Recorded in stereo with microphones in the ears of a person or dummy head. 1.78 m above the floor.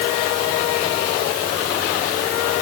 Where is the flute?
I don't hear a flute.